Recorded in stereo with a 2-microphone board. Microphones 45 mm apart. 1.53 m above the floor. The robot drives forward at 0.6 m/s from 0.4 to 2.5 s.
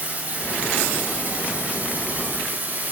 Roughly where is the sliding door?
I don't hear a sliding door.